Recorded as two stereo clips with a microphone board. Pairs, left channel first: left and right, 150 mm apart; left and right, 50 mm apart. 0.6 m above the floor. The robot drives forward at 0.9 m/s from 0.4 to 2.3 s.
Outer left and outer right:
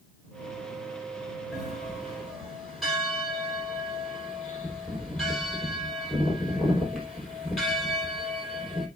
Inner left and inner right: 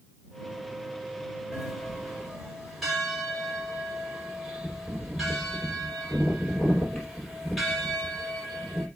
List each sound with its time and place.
1.5 s a bell: centre (ahead or behind), 4 m